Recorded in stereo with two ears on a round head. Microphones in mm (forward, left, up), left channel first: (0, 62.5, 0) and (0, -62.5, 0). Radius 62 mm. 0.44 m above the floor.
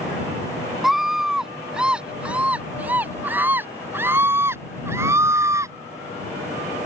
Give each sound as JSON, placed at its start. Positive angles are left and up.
{"t": 0.8, "sound": "a scream", "side_deg": 0}